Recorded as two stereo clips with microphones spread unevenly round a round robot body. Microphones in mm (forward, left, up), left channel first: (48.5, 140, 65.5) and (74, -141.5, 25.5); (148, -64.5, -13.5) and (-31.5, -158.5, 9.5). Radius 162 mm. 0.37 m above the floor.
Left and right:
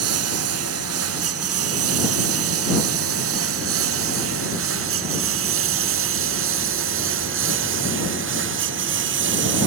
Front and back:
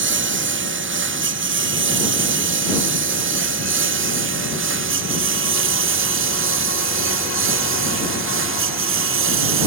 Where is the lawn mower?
130° right; by 9.7 s 140° right.